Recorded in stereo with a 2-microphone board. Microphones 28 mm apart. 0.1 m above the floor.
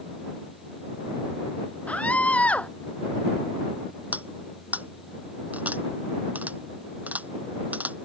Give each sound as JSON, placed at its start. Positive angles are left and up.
{"t": 1.9, "sound": "a scream", "side_deg": 55}
{"t": 4.1, "sound": "cutlery clinking", "side_deg": -70}